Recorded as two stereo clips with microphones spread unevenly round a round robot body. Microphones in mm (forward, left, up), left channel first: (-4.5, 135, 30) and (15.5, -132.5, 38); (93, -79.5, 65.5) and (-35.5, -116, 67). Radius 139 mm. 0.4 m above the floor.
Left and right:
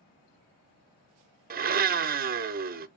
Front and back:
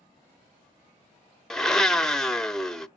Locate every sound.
1.5 s a blender: 65° right, 0.8 m